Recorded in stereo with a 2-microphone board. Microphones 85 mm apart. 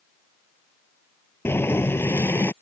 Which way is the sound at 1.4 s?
25° left (ahead or behind).